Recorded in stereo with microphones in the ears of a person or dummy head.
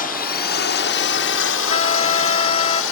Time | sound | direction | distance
0.0 | a drone | 45° left (ahead or behind) | ?
1.7 | a trumpet | 35° left (ahead or behind) | ?